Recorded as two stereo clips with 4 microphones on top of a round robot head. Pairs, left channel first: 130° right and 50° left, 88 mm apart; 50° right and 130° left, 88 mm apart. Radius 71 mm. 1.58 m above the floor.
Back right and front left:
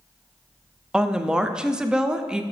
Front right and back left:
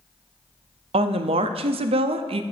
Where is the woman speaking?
135° left, 0.6 m.